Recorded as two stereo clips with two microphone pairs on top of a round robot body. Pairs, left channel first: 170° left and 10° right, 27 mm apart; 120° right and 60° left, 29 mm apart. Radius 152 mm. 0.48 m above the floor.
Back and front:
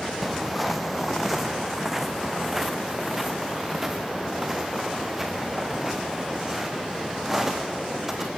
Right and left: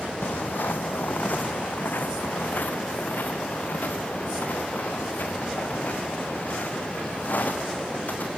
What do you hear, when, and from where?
0.2 s footsteps: 105° right, 0.9 m; by 8.3 s 90° right, 5 m